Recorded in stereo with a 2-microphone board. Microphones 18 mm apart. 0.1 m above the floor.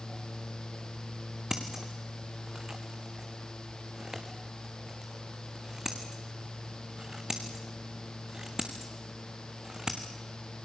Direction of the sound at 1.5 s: 30° right (ahead or behind).